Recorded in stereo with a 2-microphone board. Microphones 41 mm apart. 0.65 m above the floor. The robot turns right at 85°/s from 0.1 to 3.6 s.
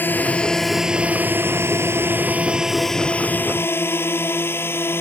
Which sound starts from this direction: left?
A drone, at 0.0 s.